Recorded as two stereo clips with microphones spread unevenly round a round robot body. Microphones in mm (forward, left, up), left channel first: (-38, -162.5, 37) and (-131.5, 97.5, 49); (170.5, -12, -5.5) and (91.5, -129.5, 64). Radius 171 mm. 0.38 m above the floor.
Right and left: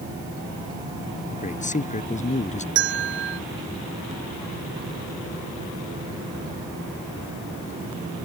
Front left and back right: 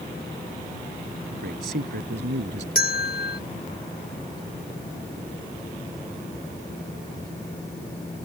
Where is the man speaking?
135° right.